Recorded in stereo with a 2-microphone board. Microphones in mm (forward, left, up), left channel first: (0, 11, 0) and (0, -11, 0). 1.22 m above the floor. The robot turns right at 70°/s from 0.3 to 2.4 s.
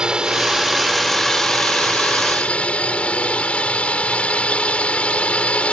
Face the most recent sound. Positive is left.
turn(degrees=105)